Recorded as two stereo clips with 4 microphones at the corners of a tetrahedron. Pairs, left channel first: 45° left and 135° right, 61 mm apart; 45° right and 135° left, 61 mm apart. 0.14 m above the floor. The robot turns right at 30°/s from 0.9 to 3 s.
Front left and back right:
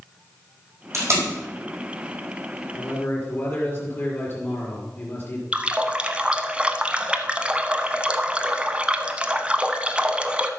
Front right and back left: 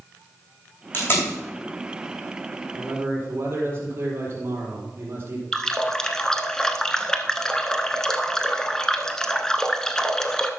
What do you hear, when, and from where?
0.9 s tape being pulled: 100° right, 4.5 m; by 1.3 s 90° right, 4.5 m
2.7 s a man speaking: 85° left, 4 m; by 5.4 s 90° left, 4 m
5.5 s a running tap: 105° right, 0.7 m